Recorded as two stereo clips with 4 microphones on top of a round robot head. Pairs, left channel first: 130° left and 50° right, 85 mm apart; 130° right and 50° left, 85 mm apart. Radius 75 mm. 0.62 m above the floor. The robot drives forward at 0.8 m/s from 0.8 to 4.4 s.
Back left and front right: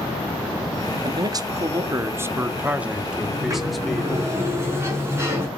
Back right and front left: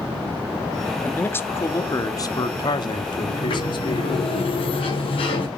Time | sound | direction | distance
1.0 | a man speaking | 60° right | 1.8 m
3.3 | a sliding door | 105° right | 7.5 m